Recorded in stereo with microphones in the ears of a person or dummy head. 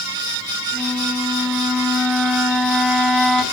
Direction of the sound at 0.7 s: 5° right (ahead or behind).